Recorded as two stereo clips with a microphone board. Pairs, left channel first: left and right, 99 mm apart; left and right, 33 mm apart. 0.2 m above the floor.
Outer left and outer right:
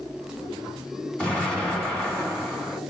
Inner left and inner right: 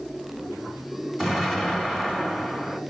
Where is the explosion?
10° left (ahead or behind), 1.7 m.